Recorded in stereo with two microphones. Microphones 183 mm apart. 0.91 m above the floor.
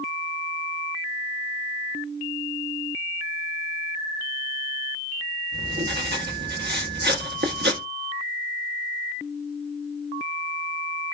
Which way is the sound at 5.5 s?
65° right (ahead or behind).